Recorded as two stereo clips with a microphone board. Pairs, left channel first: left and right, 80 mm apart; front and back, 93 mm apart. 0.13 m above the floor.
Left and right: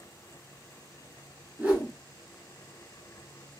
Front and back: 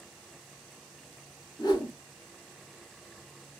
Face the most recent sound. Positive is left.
turn(degrees=-25)